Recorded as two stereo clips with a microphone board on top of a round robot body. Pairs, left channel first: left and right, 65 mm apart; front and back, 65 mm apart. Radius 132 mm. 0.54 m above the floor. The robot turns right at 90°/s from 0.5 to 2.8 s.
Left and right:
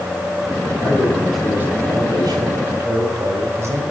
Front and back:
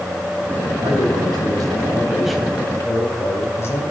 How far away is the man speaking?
About 3.5 m.